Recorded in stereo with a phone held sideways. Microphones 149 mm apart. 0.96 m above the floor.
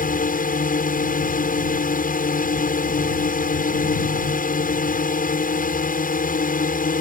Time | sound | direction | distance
0.0 | a drone | 65° left (ahead or behind) | ?